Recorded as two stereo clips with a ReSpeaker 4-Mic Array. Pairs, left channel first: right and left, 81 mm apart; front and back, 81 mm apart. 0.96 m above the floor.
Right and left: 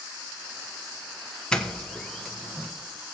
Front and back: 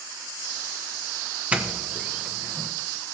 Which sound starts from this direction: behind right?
A doorbell, at 1.5 s.